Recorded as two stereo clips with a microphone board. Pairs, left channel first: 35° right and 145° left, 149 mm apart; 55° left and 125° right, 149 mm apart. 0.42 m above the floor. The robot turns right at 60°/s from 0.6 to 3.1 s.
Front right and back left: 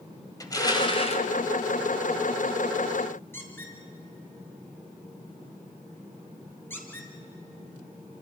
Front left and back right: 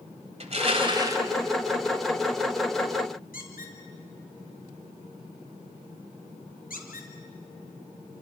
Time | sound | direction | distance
0.4 | crushing | 95° right | 2 m
3.3 | a squeak | 40° left | 4 m